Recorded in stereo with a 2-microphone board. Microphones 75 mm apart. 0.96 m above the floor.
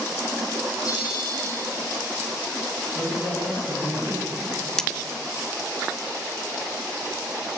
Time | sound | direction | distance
0.8 | a bell | 55° left (ahead or behind) | 7 m
3.0 | a man speaking | 25° right (ahead or behind) | 10 m
4.8 | cutlery clinking | 10° left (ahead or behind) | 0.6 m